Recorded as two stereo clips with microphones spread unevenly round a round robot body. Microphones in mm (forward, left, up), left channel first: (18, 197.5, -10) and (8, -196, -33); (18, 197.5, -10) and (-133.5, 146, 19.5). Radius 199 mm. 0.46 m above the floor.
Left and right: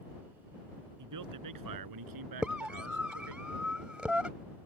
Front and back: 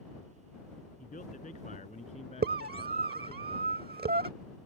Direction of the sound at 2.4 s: Straight behind.